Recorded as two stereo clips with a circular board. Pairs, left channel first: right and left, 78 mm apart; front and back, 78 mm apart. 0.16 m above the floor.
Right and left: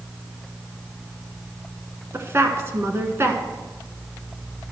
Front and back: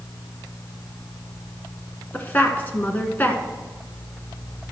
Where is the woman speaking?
55° left, 1.4 m.